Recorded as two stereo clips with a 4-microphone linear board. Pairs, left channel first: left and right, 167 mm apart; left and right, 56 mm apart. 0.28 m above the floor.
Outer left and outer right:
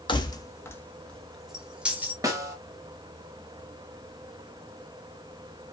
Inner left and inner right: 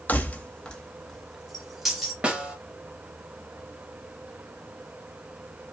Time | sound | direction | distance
0.1 | keys jangling | 30° left (ahead or behind) | 0.8 m
2.2 | a snare drum | 20° right (ahead or behind) | 1.1 m